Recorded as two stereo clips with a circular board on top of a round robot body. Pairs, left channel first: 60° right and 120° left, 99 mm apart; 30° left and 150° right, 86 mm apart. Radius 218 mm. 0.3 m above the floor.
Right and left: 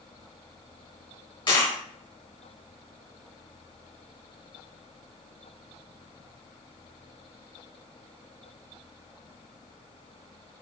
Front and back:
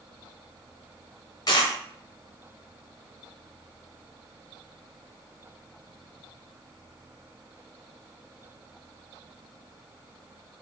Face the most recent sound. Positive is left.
turn(degrees=-15)